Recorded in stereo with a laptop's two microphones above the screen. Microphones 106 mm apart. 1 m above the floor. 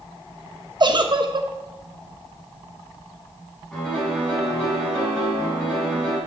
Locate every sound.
0.8 s a giggle: 45° right (ahead or behind), 1.0 m
3.7 s a piano: 10° left (ahead or behind), 7 m